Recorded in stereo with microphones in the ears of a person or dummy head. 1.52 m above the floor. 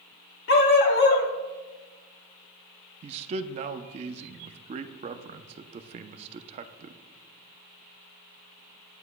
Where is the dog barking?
50° left (ahead or behind), 1.5 m.